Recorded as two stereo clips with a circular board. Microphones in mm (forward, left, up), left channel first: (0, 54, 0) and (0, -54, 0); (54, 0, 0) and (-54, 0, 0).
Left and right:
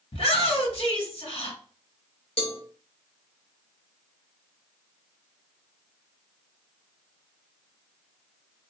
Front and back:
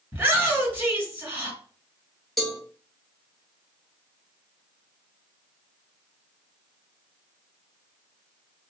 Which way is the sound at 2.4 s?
90° left.